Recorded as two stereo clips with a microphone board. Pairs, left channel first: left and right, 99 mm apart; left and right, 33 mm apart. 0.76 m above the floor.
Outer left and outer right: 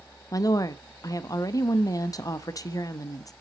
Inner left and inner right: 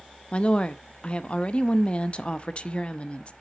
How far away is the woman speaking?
About 0.6 m.